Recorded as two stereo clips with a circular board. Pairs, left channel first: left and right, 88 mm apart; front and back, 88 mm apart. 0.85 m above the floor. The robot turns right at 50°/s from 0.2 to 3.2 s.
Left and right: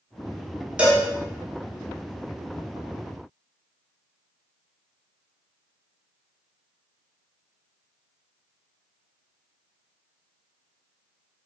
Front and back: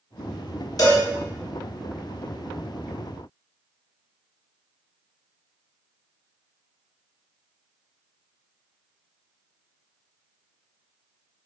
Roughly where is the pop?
I don't hear a pop.